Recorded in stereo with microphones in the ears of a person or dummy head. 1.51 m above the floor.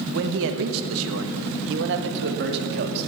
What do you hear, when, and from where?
0.1 s a man speaking: 55° right (ahead or behind), 1.3 m